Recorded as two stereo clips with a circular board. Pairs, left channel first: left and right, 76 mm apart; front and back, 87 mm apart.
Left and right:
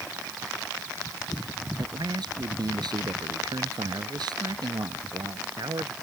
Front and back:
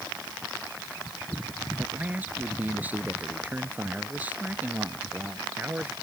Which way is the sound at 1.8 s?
110° right.